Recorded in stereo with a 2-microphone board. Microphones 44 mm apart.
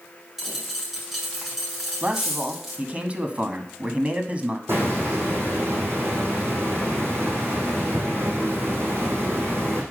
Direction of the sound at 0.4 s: 5° right (ahead or behind).